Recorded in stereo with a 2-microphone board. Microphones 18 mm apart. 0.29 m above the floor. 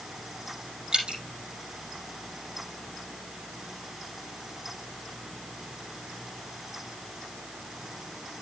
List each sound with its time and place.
0.9 s dripping: 60° right (ahead or behind), 4.5 m